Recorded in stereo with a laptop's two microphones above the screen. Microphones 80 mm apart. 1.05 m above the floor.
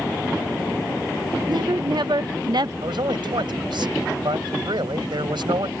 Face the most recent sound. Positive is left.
turn(degrees=-85)